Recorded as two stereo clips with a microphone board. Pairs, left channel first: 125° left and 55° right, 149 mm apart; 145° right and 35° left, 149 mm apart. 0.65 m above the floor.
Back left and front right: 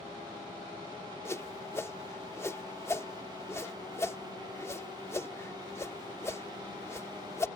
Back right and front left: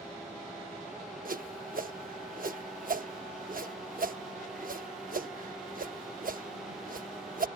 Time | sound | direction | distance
1.2 | a whoosh | 50° left | ?